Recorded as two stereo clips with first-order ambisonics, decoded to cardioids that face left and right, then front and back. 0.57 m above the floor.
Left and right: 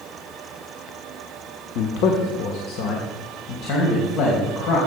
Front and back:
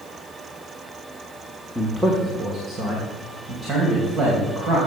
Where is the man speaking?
90° left, 1.1 m; by 4.8 s 125° left, 3.5 m.